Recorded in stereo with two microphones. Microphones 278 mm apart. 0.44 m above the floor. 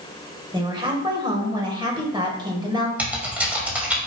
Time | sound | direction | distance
0.5 | a woman speaking | 15° right (ahead or behind) | 1.6 m
3.0 | typing on a keyboard | 5° right (ahead or behind) | 2.5 m